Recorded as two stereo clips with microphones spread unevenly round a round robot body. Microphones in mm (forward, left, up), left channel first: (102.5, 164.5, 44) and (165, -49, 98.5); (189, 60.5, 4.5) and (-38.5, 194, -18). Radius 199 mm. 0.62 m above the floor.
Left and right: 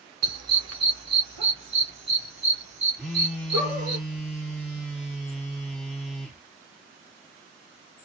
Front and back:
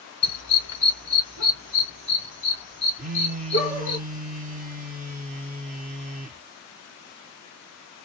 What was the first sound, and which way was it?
A dog barking, 70° right.